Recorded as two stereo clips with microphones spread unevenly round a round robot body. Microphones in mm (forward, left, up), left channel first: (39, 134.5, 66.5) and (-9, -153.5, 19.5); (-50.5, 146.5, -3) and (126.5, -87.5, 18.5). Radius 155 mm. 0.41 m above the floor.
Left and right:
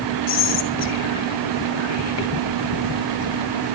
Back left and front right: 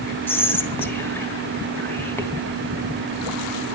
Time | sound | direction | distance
0.3 | whispering | 45° left | 3 m